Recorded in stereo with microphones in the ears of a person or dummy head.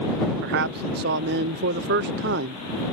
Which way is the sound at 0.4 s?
65° right (ahead or behind).